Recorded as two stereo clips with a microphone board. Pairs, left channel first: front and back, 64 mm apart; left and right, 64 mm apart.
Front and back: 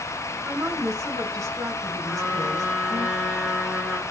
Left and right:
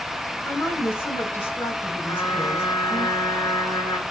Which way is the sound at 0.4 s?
145° left.